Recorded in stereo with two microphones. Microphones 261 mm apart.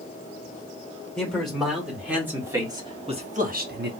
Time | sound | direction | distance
1.2 | a man speaking | 5° left (ahead or behind) | 2 m